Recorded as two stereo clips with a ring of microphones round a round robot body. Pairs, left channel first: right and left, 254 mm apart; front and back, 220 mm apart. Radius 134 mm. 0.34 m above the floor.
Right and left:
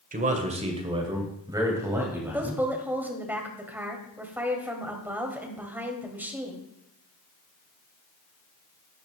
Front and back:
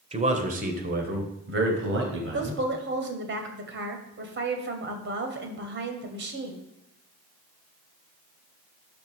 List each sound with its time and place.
0.1 s a man speaking: 130° left, 1.7 m; by 2.6 s 175° left, 3 m
2.3 s a woman speaking: 170° left, 2.5 m